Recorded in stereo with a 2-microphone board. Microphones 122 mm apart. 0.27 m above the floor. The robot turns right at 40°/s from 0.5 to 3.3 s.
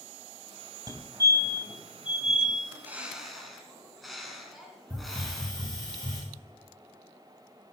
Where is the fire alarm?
35° right (ahead or behind), 2.5 m; by 2.5 s 5° left (ahead or behind), 2.5 m.